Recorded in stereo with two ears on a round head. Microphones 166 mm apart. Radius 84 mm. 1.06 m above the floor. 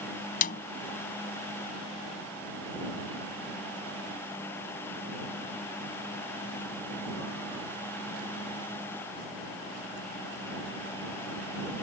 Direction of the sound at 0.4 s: 50° left (ahead or behind).